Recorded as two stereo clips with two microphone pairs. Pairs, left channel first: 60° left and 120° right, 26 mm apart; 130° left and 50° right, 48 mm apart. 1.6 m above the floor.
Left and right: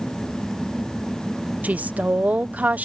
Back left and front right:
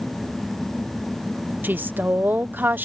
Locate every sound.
1.6 s a woman speaking: 100° right